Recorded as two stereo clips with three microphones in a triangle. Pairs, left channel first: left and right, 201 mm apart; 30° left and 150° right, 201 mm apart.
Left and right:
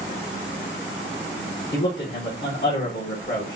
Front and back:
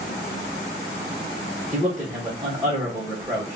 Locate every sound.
1.7 s a man speaking: 120° left, 1.3 m